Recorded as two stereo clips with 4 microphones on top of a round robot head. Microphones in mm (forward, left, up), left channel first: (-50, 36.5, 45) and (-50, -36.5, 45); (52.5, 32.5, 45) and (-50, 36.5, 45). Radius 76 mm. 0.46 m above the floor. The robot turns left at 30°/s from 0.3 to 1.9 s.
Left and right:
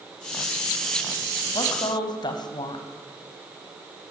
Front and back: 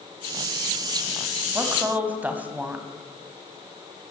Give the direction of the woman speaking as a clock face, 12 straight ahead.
8 o'clock.